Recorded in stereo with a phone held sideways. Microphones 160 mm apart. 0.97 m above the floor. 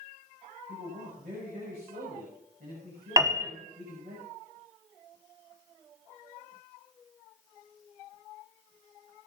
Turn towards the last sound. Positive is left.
turn(degrees=-20)  # may be behind; listen again after turning